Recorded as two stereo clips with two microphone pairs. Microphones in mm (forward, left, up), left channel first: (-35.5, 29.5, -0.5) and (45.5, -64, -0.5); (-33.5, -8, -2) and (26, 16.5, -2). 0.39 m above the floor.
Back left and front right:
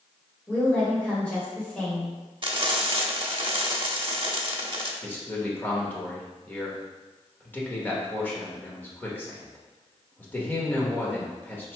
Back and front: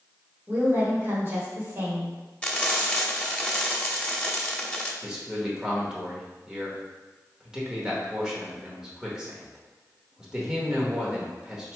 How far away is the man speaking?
About 1.0 m.